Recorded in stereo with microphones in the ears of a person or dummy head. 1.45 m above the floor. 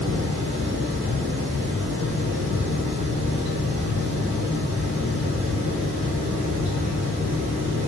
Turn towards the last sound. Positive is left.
turn(degrees=-40)  # may be behind; listen again after turning